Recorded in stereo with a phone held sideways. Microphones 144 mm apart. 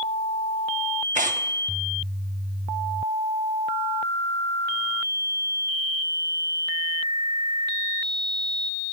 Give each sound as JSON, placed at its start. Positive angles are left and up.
{"t": 1.1, "sound": "tearing paper", "side_deg": -65, "distance_m": 0.7}